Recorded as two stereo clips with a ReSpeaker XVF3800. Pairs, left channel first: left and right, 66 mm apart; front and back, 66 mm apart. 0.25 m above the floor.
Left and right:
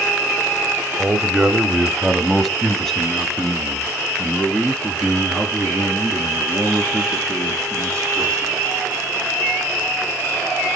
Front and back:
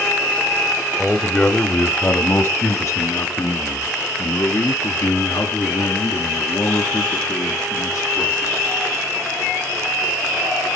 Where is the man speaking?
70° right, 1.2 m; by 8.7 s 20° left, 5.5 m.